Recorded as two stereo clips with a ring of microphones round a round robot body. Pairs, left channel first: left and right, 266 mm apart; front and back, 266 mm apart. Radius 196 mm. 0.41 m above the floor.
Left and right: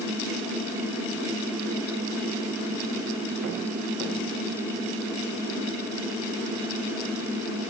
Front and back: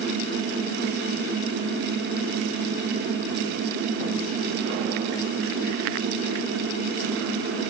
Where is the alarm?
No alarm in this recording.